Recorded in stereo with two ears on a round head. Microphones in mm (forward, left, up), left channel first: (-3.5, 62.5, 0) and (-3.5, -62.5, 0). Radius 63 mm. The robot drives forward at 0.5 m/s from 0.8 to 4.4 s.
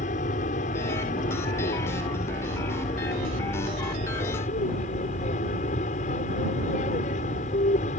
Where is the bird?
I don't hear a bird.